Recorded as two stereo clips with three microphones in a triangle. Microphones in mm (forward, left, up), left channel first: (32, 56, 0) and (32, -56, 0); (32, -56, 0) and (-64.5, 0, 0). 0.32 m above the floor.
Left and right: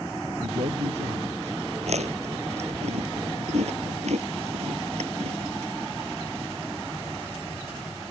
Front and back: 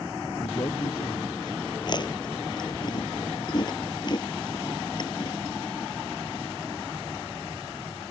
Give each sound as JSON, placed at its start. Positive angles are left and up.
{"t": 0.4, "sound": "a man speaking", "azimuth_deg": -80}
{"t": 1.8, "sound": "chewing", "azimuth_deg": -75}